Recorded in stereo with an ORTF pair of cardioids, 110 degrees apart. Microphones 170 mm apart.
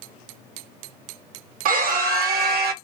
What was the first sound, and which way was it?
A scream, 60° right.